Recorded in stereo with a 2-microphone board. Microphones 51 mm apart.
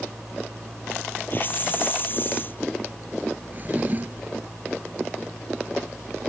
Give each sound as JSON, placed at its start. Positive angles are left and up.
{"t": 1.3, "sound": "a hiss", "side_deg": 40}
{"t": 3.5, "sound": "a drawer", "side_deg": -35}